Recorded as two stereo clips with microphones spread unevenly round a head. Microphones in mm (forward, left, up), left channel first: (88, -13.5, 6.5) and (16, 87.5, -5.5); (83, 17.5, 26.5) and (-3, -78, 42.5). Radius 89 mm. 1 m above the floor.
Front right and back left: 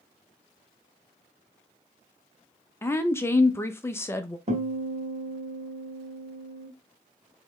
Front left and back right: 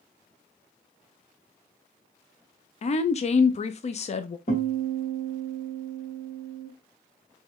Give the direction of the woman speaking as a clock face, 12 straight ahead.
11 o'clock.